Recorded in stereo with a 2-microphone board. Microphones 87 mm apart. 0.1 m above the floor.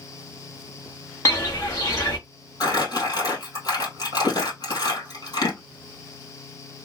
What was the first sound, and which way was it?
Footsteps, 35° left (ahead or behind).